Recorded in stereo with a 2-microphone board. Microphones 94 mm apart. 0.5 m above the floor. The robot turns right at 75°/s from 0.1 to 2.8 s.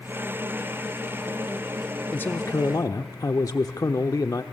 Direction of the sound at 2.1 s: 25° left.